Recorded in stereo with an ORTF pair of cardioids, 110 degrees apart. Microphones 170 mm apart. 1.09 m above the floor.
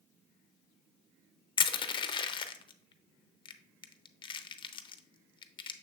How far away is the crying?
I don't hear crying.